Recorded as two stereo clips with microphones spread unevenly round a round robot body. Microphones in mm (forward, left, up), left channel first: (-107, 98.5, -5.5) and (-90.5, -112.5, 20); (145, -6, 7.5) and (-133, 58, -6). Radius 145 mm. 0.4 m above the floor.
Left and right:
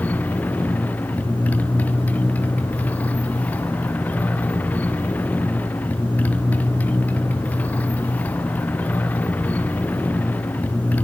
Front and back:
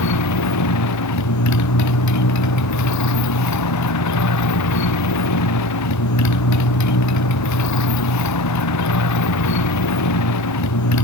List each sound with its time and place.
0.0 s a motorcycle: 10° left